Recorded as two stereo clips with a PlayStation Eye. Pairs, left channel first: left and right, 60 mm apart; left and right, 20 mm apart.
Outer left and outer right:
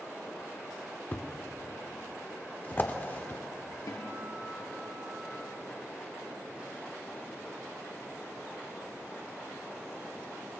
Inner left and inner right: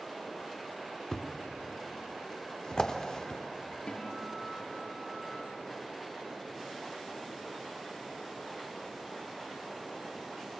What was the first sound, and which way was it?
A thud, 35° left (ahead or behind).